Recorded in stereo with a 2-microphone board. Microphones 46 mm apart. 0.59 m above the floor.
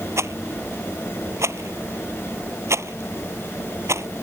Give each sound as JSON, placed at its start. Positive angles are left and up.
{"t": 0.2, "sound": "a rattle", "side_deg": -80}